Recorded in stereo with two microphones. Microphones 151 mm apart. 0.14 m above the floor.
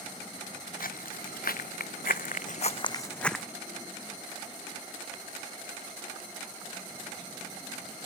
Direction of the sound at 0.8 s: 75° left (ahead or behind).